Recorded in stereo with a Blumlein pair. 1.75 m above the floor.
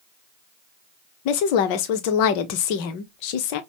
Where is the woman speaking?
45° left, 0.7 m.